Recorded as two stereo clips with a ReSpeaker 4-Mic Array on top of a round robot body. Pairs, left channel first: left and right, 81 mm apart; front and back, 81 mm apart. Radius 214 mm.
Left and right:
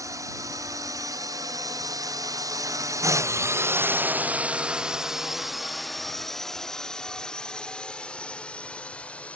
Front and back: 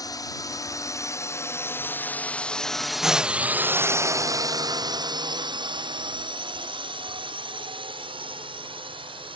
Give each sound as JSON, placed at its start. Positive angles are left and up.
{"t": 0.0, "sound": "a drone", "azimuth_deg": -40}